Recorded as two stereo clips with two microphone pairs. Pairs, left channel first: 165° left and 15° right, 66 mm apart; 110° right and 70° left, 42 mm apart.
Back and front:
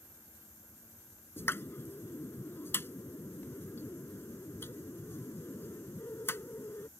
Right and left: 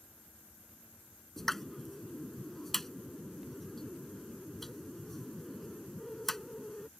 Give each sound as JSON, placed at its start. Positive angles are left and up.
{"t": 1.4, "sound": "a pop", "azimuth_deg": 175}